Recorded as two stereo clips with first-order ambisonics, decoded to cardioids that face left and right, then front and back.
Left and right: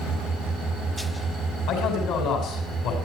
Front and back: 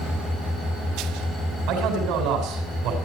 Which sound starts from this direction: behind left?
A man speaking, at 1.7 s.